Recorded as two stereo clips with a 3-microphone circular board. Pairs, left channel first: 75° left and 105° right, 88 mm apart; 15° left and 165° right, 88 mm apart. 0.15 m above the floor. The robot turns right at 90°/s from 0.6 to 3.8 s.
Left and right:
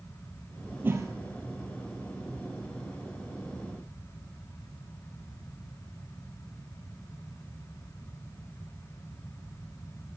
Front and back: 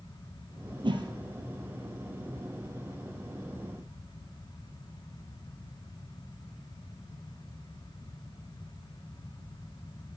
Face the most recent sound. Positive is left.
turn(degrees=100)